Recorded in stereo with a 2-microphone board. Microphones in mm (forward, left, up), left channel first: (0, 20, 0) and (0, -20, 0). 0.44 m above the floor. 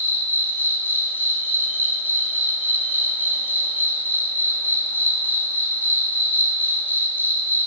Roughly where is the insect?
Left.